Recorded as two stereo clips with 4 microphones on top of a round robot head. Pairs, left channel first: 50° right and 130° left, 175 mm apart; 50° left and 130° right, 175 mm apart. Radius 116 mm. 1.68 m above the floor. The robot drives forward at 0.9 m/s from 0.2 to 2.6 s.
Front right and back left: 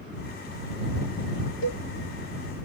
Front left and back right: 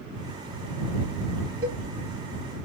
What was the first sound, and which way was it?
A cowbell, 55° right.